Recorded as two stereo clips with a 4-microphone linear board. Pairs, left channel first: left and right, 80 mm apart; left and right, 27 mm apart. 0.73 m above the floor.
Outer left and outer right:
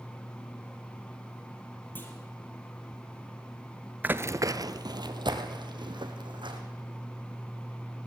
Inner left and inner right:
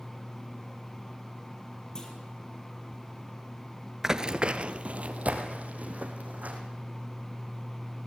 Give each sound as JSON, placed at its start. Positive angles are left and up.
{"t": 1.9, "sound": "a clunk", "side_deg": 25, "distance_m": 3.5}
{"t": 4.0, "sound": "running footsteps", "side_deg": -20, "distance_m": 0.7}